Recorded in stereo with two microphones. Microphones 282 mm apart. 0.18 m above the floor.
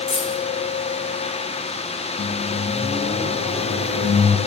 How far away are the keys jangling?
About 1.9 m.